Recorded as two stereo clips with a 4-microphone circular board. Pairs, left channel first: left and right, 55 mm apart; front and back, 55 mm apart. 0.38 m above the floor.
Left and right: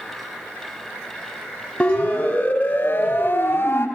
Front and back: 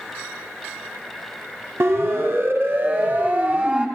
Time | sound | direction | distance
1.8 | a siren | 155° left | 3 m